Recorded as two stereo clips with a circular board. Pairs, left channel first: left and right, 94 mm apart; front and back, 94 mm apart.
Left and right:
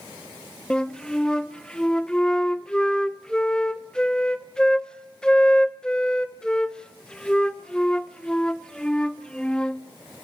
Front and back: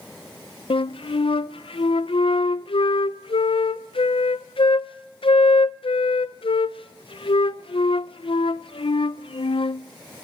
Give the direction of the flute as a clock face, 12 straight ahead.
12 o'clock.